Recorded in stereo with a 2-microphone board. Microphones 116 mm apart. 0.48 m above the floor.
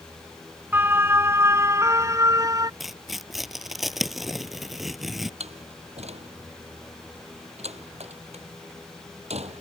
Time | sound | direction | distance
0.7 | a siren | 15° right (ahead or behind) | ?
2.8 | tearing paper | centre (ahead or behind) | ?
5.4 | a door slam | 70° right (ahead or behind) | ?